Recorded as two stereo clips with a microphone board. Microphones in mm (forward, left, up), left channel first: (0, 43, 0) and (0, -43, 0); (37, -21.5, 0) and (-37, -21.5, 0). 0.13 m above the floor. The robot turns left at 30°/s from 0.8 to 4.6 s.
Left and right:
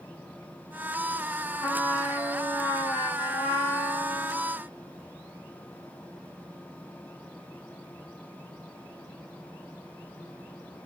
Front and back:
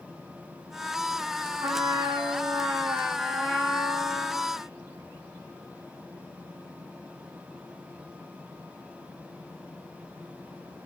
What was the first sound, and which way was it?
A trumpet, 170° left.